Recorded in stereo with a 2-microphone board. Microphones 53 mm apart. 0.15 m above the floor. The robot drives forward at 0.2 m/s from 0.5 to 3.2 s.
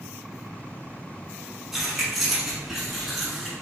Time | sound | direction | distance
1.7 | keys jangling | 5° right (ahead or behind) | 0.9 m